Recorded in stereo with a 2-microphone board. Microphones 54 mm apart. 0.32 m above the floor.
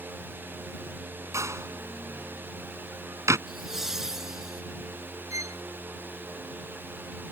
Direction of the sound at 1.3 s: 65° right (ahead or behind).